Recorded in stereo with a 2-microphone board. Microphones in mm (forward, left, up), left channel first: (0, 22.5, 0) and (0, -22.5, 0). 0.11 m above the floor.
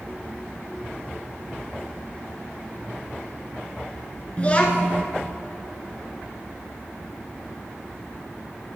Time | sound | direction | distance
4.4 | a child speaking | 30° left (ahead or behind) | 0.8 m